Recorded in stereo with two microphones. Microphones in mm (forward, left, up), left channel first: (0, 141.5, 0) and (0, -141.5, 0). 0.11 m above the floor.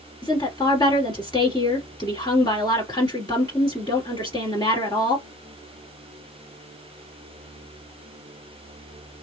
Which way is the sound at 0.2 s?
15° left (ahead or behind).